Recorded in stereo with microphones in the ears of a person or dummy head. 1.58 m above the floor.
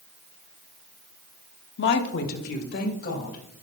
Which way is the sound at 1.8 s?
70° left (ahead or behind).